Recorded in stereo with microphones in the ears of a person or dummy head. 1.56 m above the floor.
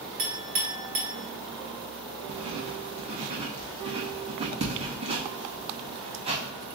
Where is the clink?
45° right (ahead or behind), 0.8 m.